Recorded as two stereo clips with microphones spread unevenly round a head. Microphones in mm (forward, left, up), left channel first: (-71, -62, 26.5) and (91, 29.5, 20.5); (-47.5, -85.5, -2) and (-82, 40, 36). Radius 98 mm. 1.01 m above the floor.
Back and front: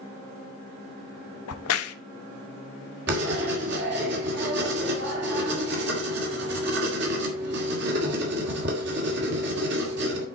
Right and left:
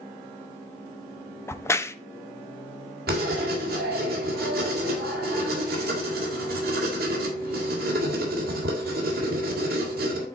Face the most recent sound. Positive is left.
turn(degrees=65)